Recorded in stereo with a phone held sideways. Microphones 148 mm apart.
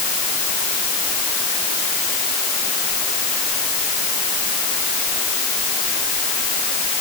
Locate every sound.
Only background noise.